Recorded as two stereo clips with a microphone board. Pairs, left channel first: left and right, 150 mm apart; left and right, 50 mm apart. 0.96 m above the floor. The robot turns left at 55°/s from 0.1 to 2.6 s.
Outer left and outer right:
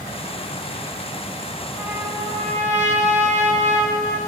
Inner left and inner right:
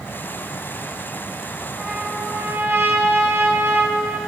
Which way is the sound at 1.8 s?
10° right.